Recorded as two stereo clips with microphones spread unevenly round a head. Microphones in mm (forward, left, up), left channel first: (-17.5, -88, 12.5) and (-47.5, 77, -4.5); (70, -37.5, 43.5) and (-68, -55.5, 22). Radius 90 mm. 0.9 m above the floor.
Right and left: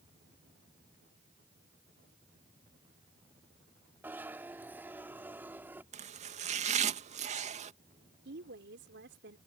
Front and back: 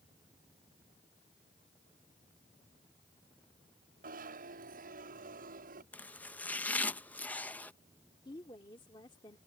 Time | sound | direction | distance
4.0 | a zipper | straight behind | ?
5.9 | chopping | 95° left | ?
8.2 | a woman speaking | 75° left | ?